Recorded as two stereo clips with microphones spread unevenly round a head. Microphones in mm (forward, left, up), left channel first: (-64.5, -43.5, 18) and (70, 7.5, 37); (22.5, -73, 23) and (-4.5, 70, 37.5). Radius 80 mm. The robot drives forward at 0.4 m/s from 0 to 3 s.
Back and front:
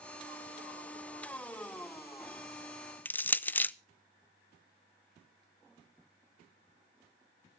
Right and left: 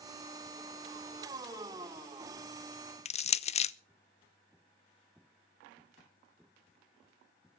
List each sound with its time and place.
3.0 s crushing: 90° right, 0.5 m